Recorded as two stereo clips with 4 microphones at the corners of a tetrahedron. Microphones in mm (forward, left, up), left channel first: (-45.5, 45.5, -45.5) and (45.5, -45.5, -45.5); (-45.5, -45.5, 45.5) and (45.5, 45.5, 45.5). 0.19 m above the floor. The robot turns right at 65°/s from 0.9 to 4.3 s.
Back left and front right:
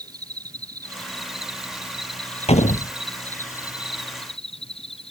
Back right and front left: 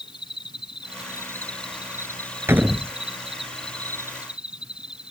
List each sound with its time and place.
0.0 s an insect: 95° right; by 5.1 s 125° left
2.5 s a door slam: 115° left; by 2.9 s 140° left